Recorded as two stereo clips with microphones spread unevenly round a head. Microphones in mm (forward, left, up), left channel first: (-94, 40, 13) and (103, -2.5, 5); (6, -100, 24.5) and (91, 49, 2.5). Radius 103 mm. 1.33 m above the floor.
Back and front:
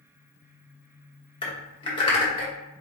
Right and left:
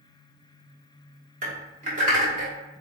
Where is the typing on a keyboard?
110° left, 1.1 m.